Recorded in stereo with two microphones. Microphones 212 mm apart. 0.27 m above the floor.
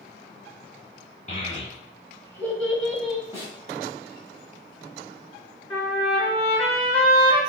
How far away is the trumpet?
About 1.9 m.